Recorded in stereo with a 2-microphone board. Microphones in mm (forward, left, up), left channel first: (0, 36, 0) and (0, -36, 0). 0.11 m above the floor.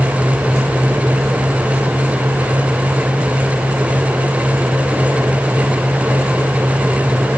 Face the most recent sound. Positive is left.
No sound to turn to.